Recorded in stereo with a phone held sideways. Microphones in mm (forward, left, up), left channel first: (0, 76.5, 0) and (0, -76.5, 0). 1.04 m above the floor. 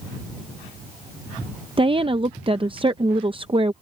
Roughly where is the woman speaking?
Right.